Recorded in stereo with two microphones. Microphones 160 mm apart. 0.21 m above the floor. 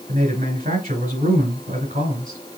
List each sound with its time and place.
0.1 s a man speaking: 50° right (ahead or behind), 2.5 m